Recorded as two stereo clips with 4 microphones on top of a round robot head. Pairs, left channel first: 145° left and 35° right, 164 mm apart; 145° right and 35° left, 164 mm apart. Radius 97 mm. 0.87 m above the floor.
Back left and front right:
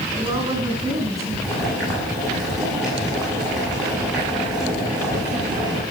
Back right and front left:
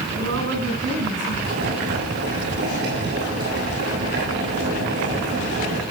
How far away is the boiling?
About 7.5 m.